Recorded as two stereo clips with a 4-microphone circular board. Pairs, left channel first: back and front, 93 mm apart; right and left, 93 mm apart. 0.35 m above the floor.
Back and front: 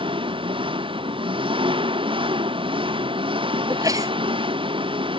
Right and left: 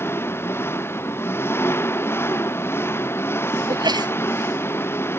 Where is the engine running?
25° right.